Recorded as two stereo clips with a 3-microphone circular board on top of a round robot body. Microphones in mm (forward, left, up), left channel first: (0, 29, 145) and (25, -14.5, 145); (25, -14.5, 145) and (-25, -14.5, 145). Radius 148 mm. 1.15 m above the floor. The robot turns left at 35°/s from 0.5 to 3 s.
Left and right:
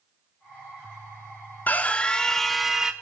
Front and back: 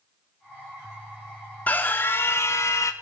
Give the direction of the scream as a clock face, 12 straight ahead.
10 o'clock.